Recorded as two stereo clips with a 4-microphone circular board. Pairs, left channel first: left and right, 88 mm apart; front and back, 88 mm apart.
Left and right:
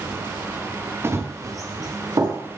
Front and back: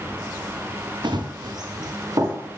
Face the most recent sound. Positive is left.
turn(degrees=-135)